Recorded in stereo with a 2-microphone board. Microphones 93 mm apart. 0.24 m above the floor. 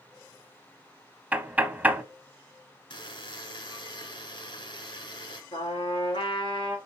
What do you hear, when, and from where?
1.3 s knocking: 15° right (ahead or behind), 0.9 m
2.9 s a buzzer: 65° left (ahead or behind), 2.5 m
5.5 s a trumpet: 70° left (ahead or behind), 2.5 m